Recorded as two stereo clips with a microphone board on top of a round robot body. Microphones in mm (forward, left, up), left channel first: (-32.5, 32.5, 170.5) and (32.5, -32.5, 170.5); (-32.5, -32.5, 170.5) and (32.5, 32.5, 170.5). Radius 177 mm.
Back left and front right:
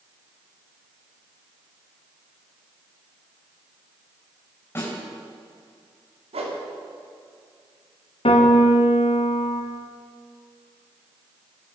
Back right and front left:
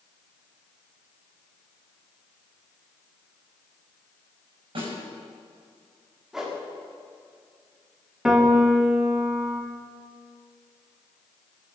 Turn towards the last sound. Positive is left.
turn(degrees=130)